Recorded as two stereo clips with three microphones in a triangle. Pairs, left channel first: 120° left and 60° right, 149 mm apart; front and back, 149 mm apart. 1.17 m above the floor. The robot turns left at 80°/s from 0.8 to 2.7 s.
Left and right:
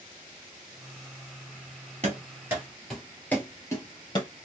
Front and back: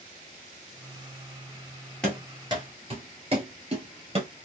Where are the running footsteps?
80° right, 1.7 m; by 4.3 s 160° left, 1.5 m.